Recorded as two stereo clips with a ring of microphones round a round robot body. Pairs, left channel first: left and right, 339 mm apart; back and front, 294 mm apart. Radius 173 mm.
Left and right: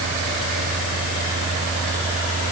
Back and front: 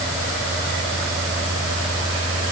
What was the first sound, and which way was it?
Only background noise.